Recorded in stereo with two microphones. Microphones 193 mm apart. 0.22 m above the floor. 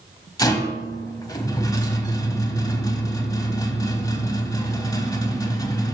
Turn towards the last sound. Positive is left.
turn(degrees=20)  # may be behind; listen again after turning